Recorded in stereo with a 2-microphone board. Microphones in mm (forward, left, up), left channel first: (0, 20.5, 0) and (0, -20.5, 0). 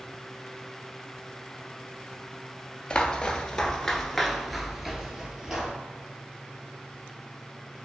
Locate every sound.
2.9 s footsteps: 25° left (ahead or behind), 1.0 m; by 5.7 s 15° right (ahead or behind), 1.3 m